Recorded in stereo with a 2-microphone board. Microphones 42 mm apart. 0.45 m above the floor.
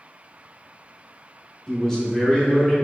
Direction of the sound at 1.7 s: 5° left (ahead or behind).